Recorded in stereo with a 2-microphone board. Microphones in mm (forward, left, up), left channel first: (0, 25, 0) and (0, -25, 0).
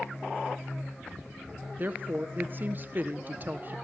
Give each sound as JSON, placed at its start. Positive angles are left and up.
{"t": 1.8, "sound": "a woman speaking", "side_deg": -40, "distance_m": 1.4}